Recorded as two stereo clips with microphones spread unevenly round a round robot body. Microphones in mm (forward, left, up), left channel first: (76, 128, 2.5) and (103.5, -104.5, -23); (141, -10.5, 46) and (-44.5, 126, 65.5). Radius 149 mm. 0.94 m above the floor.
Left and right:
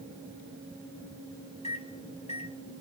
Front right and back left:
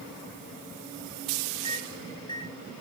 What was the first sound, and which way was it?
A microwave, 35° left.